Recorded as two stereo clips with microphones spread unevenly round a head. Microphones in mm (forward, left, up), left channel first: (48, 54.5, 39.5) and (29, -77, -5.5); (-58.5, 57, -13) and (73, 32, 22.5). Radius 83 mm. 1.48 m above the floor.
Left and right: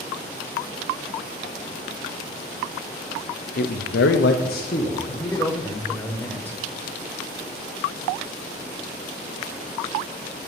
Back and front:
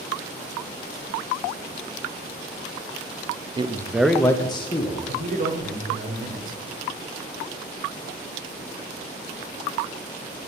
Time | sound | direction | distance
3.6 | a man speaking | 50° left | 0.7 m
5.1 | a man speaking | 10° left | 0.8 m